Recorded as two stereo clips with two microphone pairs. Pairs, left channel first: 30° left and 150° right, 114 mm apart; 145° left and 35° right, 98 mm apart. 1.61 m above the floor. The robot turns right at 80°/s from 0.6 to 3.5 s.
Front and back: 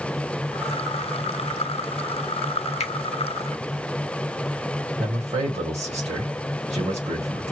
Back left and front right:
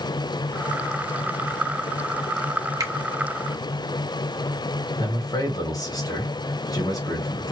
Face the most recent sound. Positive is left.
turn(degrees=-160)